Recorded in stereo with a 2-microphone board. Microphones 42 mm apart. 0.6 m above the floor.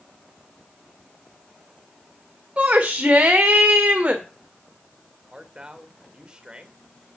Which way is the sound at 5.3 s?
20° right (ahead or behind).